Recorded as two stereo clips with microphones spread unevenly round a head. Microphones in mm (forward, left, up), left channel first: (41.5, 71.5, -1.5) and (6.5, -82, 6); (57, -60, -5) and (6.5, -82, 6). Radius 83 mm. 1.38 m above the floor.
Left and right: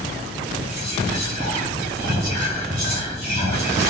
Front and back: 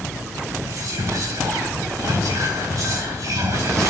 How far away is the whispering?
About 1.3 m.